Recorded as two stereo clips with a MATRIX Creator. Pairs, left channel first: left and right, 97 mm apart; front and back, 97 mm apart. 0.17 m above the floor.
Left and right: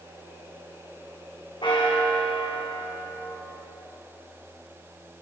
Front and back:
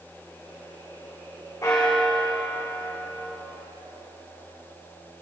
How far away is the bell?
About 3.5 m.